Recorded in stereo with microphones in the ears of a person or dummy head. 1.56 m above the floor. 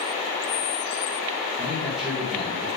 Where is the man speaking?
Centre (ahead or behind), 1.9 m.